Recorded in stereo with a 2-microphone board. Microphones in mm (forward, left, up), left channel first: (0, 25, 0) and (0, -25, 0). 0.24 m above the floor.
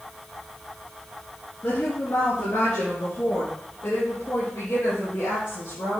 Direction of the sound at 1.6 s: 70° left (ahead or behind).